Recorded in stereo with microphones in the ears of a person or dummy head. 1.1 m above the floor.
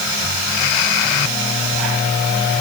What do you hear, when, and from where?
Only background noise.